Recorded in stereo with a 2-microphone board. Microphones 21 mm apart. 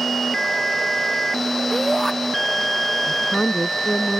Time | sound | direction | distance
1.7 | a shout | 20° left (ahead or behind) | ?
3.1 | a woman speaking | 50° left (ahead or behind) | ?